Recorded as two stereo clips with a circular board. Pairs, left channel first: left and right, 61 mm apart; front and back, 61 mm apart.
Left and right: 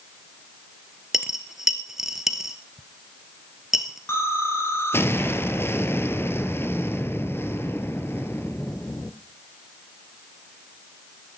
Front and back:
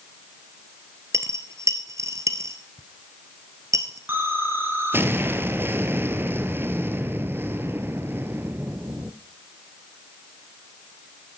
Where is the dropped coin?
170° right, 1.2 m.